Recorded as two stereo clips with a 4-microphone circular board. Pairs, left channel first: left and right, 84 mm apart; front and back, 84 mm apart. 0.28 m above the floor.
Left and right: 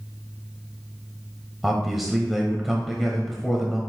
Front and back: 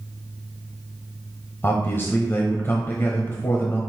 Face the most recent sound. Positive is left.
turn(degrees=-5)